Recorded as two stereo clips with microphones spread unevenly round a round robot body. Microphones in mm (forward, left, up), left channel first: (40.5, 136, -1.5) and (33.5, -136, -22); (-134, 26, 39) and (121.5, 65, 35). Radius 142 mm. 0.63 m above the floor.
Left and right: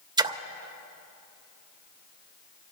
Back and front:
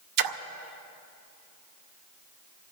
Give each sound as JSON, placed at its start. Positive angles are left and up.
{"t": 0.2, "sound": "a splash", "azimuth_deg": -15, "distance_m": 0.6}